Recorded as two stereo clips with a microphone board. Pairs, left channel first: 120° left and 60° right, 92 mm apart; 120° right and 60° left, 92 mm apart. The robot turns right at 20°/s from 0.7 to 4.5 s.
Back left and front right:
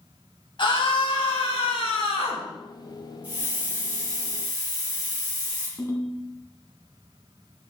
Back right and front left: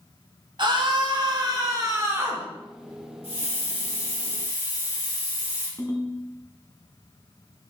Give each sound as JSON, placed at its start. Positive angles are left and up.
{"t": 0.6, "sound": "a scream", "azimuth_deg": 90, "distance_m": 3.5}
{"t": 3.2, "sound": "a hiss", "azimuth_deg": -130, "distance_m": 5.5}
{"t": 5.8, "sound": "a ringtone", "azimuth_deg": 180, "distance_m": 2.5}